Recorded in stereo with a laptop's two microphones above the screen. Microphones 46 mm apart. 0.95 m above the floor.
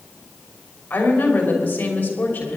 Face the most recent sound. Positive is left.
turn(degrees=35)  # may be behind; listen again after turning